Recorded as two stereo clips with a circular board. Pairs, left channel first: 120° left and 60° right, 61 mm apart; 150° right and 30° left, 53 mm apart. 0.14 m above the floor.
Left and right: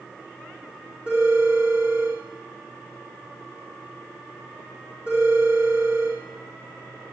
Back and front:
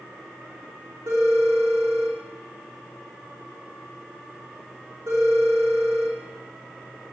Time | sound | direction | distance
1.1 | a phone ringing | 10° left | 5.5 m